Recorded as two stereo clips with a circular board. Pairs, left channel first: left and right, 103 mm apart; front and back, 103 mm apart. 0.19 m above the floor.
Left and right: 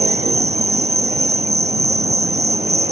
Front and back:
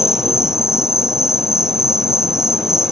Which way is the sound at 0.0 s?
95° right.